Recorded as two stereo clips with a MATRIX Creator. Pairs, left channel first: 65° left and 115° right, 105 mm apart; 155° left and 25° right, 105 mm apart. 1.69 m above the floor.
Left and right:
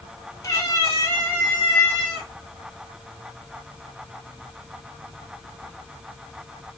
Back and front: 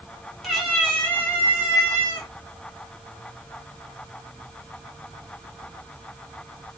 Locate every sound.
0.4 s a cat meowing: 65° left, 1.8 m; by 2.3 s 145° left, 2.0 m